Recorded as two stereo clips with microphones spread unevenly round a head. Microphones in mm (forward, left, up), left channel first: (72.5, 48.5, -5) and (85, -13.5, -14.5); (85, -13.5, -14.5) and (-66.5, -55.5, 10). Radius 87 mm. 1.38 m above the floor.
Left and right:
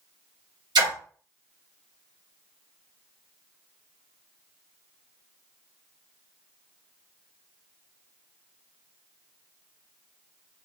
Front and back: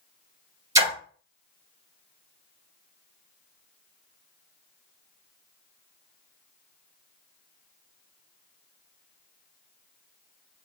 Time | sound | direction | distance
0.8 | a splash | 95° right | 1.4 m